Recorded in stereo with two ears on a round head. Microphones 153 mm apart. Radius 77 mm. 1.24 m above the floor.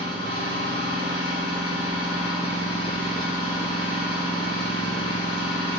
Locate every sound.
0.0 s an engine running: 30° left (ahead or behind), 4.5 m